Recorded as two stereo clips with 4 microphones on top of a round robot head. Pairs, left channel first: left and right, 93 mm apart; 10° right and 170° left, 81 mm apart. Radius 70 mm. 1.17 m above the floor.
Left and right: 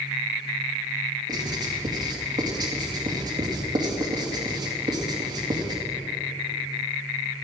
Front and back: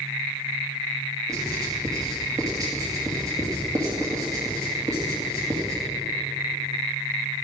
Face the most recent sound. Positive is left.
turn(degrees=-135)